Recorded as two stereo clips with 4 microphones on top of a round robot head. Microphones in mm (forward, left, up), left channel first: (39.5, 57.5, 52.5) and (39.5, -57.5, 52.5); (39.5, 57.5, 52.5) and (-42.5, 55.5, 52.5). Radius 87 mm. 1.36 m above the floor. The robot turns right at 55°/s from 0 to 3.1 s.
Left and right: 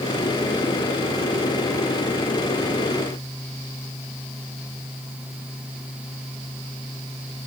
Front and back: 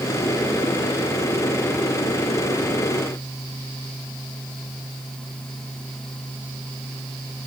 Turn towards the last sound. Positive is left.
No sound to turn to.